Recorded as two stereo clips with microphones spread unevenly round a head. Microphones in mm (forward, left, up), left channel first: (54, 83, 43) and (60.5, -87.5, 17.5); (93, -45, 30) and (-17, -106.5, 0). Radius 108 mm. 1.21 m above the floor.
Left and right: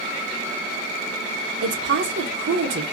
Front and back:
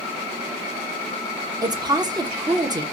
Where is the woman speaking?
95° right, 1.5 m.